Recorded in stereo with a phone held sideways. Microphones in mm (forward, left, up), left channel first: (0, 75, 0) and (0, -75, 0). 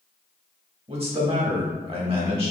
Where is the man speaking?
40° right (ahead or behind), 1.6 m.